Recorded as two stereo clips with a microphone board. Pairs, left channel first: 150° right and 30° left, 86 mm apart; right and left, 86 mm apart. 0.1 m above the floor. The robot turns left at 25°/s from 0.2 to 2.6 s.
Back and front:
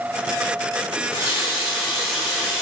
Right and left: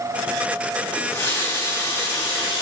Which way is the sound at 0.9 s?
20° right.